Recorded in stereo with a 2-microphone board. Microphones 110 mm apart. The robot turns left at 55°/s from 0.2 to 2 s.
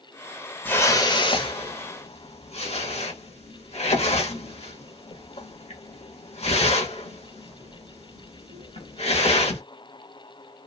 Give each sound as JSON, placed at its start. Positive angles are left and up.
{"t": 0.7, "sound": "a whoosh", "side_deg": 15, "distance_m": 0.9}